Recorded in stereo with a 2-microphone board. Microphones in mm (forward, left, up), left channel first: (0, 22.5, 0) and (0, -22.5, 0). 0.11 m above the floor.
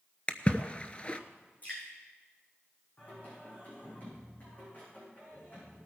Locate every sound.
0.3 s a splash: 25° left (ahead or behind), 0.8 m
1.6 s dripping: 35° left (ahead or behind), 5.5 m
3.0 s singing: 35° left (ahead or behind), 8 m